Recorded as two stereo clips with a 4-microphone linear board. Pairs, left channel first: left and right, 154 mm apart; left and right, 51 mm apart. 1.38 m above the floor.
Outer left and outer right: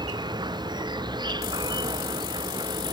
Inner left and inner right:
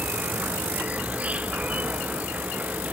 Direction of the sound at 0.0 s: 25° right (ahead or behind).